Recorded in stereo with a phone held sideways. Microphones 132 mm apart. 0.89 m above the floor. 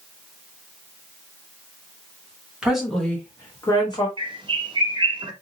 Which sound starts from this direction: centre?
A woman speaking, at 2.6 s.